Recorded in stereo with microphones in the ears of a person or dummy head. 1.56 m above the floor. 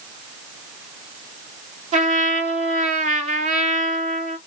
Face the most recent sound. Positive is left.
turn(degrees=-40)  # may be behind; listen again after turning